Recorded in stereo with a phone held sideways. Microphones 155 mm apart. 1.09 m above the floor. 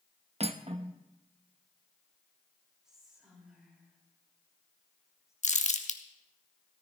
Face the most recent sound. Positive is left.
turn(degrees=55)  # may be behind; listen again after turning